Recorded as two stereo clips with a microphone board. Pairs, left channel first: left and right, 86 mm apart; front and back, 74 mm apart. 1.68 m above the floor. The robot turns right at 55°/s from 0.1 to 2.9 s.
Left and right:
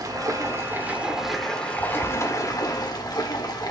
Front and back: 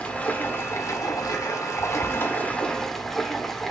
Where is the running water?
70° right, 1.8 m; by 3.7 s 85° left, 1.8 m.